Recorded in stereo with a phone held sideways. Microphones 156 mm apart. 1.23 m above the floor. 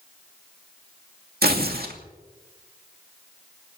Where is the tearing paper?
75° right (ahead or behind), 2.5 m.